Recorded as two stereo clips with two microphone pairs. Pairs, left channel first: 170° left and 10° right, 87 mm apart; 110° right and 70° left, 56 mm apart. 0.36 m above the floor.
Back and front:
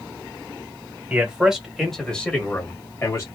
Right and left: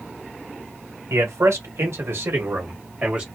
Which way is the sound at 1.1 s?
60° left.